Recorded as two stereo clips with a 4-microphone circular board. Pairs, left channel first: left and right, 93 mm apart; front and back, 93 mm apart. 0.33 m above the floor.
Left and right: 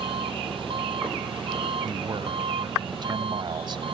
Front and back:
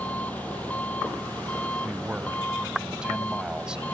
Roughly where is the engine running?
Right.